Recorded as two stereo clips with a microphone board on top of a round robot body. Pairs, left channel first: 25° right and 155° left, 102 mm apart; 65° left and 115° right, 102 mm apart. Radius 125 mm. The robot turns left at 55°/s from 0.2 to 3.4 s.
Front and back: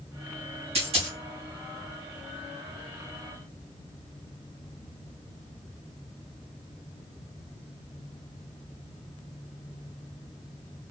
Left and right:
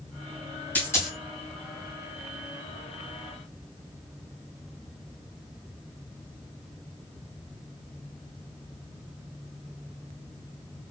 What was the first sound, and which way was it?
A dropped coin, 145° left.